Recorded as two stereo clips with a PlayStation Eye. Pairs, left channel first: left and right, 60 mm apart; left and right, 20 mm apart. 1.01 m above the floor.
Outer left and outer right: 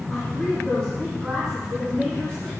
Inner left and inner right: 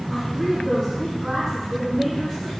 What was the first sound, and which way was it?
A woman speaking, 15° left (ahead or behind).